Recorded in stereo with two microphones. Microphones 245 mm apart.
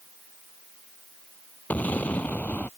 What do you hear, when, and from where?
1.7 s an explosion: 5° left (ahead or behind)